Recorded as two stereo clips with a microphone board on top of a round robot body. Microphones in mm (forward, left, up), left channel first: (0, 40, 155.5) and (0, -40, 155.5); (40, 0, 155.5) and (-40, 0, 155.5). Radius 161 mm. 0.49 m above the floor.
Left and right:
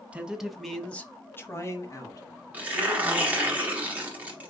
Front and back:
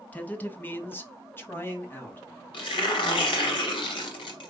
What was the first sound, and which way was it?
A man speaking, 40° right.